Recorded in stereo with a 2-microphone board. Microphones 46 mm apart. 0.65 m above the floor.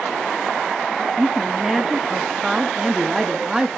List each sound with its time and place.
1.2 s a woman speaking: 10° right (ahead or behind), 0.8 m